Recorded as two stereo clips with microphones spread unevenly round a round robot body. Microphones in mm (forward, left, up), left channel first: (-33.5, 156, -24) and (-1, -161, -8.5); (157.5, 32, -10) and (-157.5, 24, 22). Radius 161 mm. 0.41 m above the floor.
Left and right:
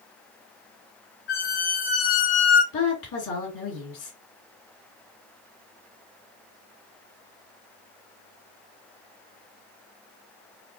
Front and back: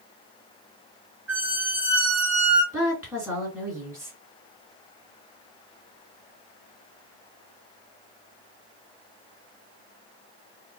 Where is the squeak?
95° left, 2 m.